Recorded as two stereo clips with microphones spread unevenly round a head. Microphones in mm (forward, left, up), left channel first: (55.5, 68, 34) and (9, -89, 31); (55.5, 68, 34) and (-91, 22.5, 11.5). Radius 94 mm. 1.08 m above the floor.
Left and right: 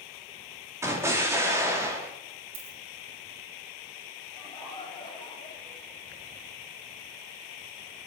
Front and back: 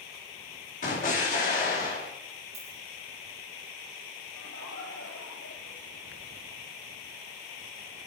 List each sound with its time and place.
0.8 s an explosion: 35° right, 2.5 m
2.5 s a dropped coin: 100° right, 4.5 m
4.3 s laughter: 10° left, 4.5 m